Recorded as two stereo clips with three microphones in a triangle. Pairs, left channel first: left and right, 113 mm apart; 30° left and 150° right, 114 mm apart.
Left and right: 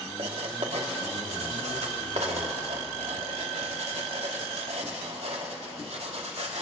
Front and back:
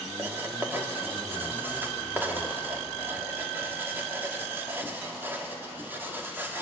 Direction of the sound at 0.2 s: 80° right.